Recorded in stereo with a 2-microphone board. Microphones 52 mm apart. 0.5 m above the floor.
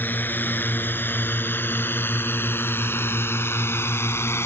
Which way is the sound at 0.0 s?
40° left (ahead or behind).